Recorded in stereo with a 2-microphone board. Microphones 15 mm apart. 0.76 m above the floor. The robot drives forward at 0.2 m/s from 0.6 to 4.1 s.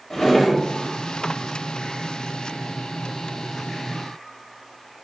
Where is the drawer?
30° left (ahead or behind), 0.7 m.